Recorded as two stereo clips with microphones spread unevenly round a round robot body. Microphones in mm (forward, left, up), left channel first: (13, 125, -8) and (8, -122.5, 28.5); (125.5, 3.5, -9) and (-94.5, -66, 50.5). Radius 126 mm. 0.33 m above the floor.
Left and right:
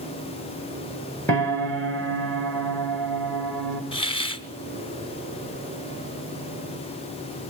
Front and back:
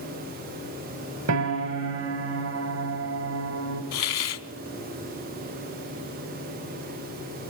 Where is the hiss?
20° left, 0.9 m.